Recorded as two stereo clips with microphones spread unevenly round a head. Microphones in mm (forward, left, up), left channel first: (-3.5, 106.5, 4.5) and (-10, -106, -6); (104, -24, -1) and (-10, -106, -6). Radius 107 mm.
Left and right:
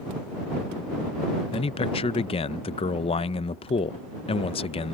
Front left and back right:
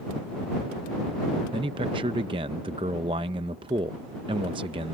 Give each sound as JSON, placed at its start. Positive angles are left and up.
{"t": 1.5, "sound": "a man speaking", "azimuth_deg": 155}